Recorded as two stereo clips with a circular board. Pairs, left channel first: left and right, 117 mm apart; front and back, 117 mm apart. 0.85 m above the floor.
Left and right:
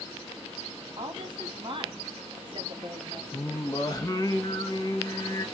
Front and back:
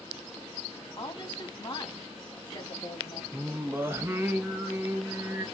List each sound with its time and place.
1.0 s a woman speaking: 45° right, 1.4 m
3.3 s singing: 125° left, 0.7 m